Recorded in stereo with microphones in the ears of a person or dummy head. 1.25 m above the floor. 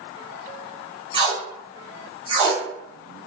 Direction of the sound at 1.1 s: 25° right (ahead or behind).